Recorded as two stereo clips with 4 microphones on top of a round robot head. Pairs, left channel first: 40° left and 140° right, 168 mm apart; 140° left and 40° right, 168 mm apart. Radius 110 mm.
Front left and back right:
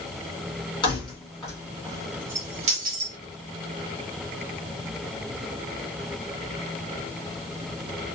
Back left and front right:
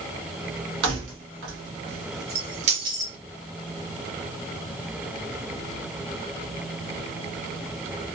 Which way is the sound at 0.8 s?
30° right.